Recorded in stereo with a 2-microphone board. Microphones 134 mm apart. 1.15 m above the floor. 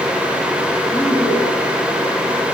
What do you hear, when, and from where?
0.9 s a woman speaking: 25° left (ahead or behind), 9.5 m